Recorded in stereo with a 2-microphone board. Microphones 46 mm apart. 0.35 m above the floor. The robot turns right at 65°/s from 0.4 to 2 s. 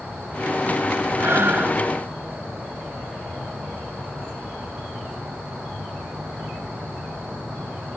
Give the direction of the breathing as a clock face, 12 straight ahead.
3 o'clock.